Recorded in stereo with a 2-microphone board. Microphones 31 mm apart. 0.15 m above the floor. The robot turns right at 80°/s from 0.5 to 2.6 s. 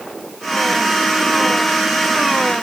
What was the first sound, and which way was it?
Only background noise.